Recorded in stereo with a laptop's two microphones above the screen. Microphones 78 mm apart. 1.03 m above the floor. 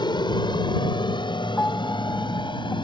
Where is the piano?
25° left (ahead or behind).